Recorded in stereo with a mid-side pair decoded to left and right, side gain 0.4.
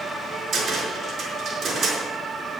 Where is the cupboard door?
70° right, 5 m.